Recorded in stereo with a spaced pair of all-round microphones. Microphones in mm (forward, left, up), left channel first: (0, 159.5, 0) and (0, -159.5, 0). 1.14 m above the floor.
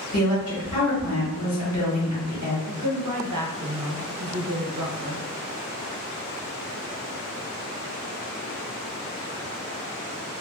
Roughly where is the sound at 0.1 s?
Left.